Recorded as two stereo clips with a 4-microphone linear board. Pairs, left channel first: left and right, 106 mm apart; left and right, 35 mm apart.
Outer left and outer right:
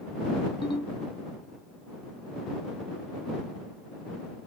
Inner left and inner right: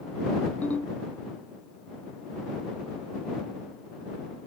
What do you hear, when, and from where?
0.6 s a ringtone: 50° left (ahead or behind)